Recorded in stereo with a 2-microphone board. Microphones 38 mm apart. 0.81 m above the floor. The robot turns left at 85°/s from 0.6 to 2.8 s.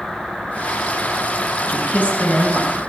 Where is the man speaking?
80° left, 5 m; by 2.8 s 15° right, 5 m.